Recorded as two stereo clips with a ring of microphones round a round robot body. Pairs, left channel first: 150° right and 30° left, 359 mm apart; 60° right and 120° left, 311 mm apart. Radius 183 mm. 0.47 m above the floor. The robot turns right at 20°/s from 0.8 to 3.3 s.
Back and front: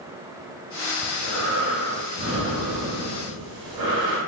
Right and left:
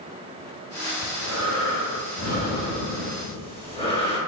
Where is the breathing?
35° right, 1.4 m; by 4.2 s 10° left, 1.4 m.